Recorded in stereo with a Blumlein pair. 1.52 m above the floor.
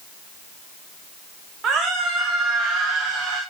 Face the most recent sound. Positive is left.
turn(degrees=-25)